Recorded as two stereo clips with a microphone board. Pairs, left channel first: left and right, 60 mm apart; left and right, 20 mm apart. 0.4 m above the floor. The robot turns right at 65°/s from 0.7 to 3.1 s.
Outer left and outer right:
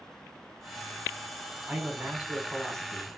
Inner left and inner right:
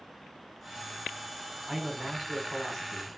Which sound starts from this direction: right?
A man speaking, at 1.7 s.